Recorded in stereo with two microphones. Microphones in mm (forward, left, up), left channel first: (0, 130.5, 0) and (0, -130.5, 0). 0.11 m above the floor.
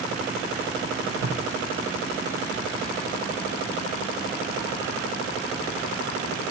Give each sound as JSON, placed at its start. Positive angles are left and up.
{"t": 1.2, "sound": "tape being pulled", "side_deg": -65, "distance_m": 1.3}